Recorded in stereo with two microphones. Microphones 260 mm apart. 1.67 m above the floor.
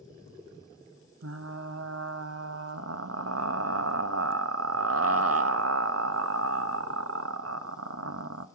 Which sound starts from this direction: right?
Frying, at 1.2 s.